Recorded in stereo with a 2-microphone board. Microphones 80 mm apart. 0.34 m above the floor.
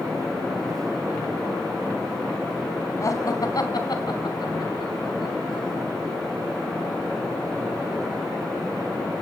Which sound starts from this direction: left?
Laughter, at 3.0 s.